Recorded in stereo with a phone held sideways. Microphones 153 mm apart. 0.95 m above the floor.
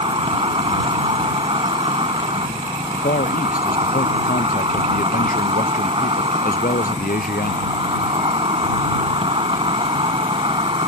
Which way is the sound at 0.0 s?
35° right (ahead or behind).